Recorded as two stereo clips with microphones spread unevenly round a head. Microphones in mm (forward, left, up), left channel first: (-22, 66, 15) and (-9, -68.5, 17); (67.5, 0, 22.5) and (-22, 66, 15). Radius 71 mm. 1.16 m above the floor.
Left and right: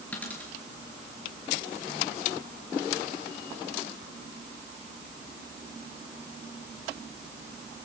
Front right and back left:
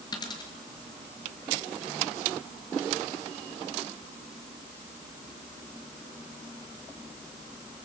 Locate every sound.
0.1 s a dropped coin: 15° left, 5.5 m